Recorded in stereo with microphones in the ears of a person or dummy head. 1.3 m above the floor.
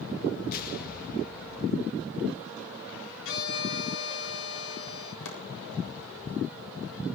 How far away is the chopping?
About 7 m.